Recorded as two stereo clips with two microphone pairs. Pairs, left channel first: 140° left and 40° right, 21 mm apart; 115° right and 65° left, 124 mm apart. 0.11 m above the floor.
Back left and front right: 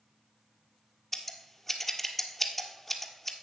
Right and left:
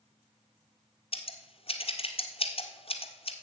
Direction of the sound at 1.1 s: 145° right.